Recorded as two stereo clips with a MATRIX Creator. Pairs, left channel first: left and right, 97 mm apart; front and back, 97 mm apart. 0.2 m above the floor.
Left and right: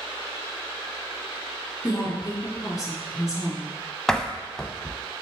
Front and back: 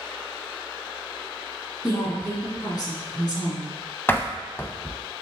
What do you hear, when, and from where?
1.8 s a woman speaking: 40° left, 2.5 m
4.1 s a door slam: 20° left, 0.7 m